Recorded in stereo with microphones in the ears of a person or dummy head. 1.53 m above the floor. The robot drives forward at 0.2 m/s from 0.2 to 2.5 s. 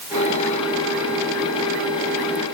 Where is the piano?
No piano in this recording.